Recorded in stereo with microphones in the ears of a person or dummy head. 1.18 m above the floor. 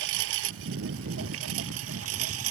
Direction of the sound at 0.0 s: 70° right (ahead or behind).